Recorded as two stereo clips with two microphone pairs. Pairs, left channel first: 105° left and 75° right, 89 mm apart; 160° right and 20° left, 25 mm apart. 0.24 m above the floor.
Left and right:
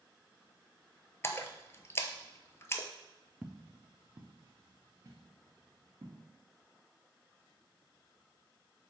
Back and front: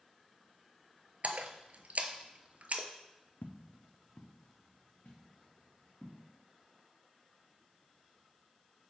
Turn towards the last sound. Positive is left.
turn(degrees=-120)